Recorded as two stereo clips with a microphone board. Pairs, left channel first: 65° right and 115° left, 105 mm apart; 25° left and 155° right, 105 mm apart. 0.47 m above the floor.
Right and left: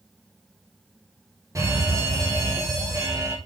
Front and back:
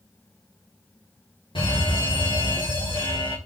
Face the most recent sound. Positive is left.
turn(degrees=55)